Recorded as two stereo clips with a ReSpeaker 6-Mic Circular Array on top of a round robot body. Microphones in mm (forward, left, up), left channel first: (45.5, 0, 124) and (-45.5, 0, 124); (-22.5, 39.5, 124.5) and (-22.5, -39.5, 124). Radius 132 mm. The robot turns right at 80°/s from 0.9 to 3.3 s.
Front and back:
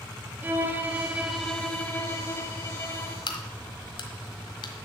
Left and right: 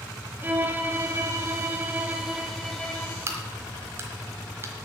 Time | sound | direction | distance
0.4 | a violin | 130° right | 1.4 m
3.3 | a crack | 35° right | 1.3 m